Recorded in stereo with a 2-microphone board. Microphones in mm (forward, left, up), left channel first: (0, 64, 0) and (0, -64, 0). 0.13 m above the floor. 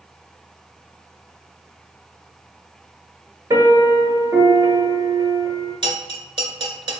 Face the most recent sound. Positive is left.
turn(degrees=-40)  # may be behind; listen again after turning